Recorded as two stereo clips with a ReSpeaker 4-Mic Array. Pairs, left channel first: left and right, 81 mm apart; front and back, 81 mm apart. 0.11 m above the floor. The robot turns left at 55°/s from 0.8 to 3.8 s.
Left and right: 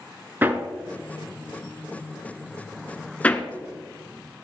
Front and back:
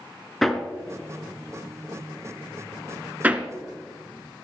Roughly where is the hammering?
Right.